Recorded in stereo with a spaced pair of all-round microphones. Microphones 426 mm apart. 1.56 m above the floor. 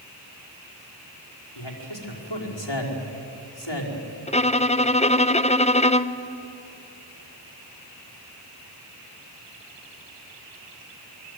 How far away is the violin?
About 0.6 m.